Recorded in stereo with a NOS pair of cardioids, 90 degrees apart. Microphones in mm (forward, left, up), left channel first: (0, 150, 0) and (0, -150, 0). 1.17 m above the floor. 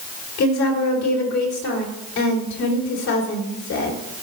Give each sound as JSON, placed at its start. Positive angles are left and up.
{"t": 0.4, "sound": "a woman speaking", "azimuth_deg": 65, "distance_m": 3.0}